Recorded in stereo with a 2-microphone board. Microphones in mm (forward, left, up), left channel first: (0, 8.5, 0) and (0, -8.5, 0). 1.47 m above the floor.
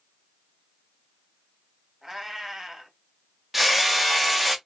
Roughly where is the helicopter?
No helicopter in this recording.